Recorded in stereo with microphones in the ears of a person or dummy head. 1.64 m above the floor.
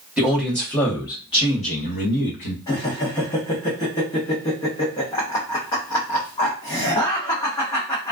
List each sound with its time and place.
0.2 s a man speaking: 5° right (ahead or behind), 1.2 m; by 2.6 s 60° left (ahead or behind), 1.2 m
2.7 s laughter: 20° left (ahead or behind), 0.7 m